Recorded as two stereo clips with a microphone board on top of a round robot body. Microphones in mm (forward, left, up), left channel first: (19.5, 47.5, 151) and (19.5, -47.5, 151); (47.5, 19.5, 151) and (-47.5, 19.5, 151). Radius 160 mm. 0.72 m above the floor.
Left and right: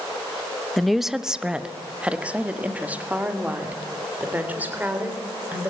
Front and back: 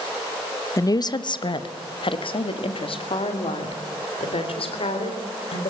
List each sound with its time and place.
0.8 s a woman speaking: 5° left, 0.9 m; by 5.7 s 20° right, 4 m